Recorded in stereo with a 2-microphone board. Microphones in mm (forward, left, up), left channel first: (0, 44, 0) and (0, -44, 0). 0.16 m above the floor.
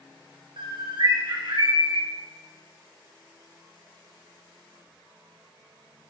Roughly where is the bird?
Right.